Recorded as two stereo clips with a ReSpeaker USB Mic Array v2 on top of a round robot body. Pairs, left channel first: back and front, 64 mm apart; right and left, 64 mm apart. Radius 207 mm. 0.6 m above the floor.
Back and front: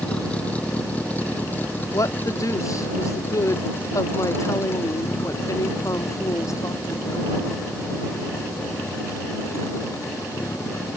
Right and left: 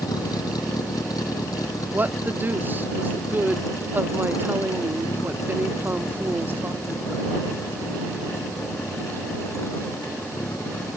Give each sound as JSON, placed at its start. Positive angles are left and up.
{"t": 0.0, "sound": "a vehicle", "azimuth_deg": -110}
{"t": 1.9, "sound": "a woman speaking", "azimuth_deg": 150}